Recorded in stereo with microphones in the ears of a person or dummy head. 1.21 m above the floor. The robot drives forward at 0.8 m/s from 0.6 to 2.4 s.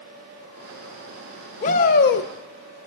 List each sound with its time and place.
1.6 s a shout: 40° left (ahead or behind), 1.3 m; by 2.3 s 60° left (ahead or behind), 0.9 m